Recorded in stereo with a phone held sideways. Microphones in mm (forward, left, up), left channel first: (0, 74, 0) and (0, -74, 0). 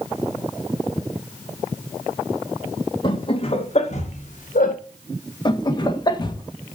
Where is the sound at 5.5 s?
30° left (ahead or behind), 1.4 m.